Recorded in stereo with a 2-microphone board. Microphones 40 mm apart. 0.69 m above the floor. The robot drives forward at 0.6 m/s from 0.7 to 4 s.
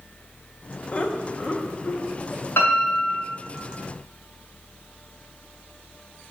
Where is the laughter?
30° left (ahead or behind), 0.6 m; by 2.5 s 20° left (ahead or behind), 1.1 m.